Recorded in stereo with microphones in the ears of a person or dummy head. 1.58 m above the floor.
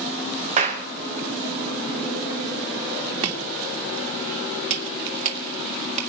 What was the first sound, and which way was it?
A clap, 30° right (ahead or behind).